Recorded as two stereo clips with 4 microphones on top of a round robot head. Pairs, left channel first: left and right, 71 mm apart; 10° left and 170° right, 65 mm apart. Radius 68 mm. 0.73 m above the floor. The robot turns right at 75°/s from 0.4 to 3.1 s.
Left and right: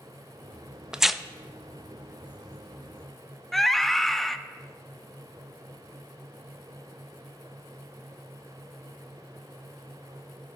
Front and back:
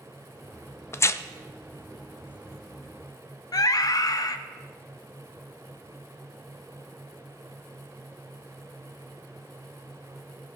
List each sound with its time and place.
0.9 s tearing paper: 15° right, 0.5 m; by 1.2 s 5° left, 0.5 m
3.5 s a scream: 5° left, 0.9 m